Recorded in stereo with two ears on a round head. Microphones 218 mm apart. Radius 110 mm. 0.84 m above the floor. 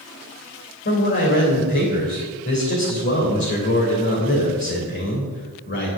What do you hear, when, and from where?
0.8 s a man speaking: 50° left (ahead or behind), 3 m